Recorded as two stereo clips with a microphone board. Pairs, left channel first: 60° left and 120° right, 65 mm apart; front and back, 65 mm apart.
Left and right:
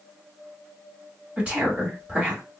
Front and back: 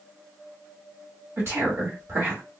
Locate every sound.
1.4 s a woman speaking: straight behind, 1.5 m